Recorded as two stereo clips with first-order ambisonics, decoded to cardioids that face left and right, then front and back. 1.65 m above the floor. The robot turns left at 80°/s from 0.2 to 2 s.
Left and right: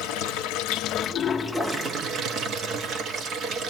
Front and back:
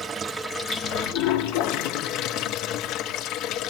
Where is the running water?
105° left, 0.7 m; by 3.7 s 40° right, 0.7 m.